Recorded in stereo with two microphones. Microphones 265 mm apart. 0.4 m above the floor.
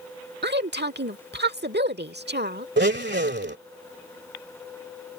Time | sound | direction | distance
0.4 | a woman speaking | 40° right (ahead or behind) | ?
2.8 | a blender | 40° right (ahead or behind) | ?